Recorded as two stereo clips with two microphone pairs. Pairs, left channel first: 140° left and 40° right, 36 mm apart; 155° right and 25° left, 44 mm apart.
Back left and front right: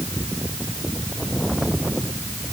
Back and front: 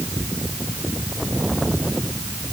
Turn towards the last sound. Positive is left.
No sound to turn to.